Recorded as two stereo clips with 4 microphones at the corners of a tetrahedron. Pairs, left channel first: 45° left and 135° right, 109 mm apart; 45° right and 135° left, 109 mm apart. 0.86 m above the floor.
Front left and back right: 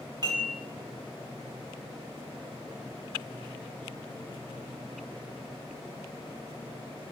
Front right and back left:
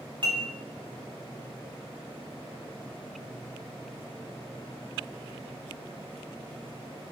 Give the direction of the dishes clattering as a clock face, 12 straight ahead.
6 o'clock.